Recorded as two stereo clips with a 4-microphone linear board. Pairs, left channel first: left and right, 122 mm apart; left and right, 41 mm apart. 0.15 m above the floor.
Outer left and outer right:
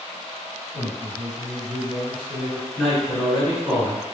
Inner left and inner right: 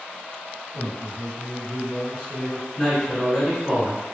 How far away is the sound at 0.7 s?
About 1.6 m.